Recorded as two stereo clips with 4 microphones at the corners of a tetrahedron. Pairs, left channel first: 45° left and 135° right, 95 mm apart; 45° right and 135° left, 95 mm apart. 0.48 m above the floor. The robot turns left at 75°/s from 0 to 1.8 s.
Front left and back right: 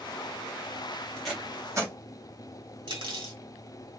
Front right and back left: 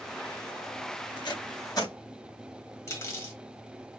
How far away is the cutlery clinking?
About 1.5 m.